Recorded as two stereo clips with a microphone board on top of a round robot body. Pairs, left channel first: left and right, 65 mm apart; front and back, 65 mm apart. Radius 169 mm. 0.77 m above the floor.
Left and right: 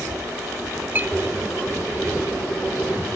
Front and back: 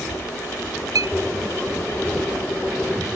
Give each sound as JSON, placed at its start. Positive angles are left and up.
{"t": 0.9, "sound": "a clink", "azimuth_deg": -150}